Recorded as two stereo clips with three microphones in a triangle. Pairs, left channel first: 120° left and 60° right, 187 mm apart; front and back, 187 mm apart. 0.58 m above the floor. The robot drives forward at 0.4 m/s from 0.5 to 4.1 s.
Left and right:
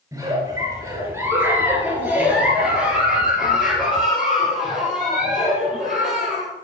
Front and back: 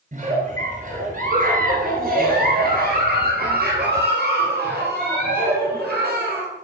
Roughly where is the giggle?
Behind right.